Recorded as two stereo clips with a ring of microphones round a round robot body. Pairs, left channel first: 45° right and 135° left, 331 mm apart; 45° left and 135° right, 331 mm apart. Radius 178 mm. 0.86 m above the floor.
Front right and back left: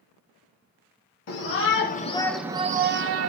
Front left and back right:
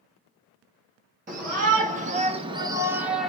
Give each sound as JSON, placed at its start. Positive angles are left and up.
{"t": 1.3, "sound": "a shout", "azimuth_deg": -75, "distance_m": 0.8}